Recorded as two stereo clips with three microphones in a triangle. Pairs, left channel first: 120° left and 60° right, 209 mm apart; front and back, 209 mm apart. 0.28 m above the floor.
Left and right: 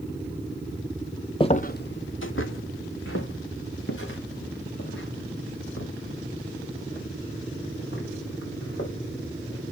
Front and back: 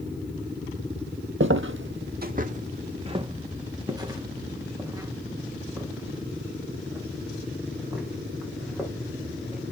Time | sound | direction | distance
1.4 | footsteps | 175° right | 0.6 m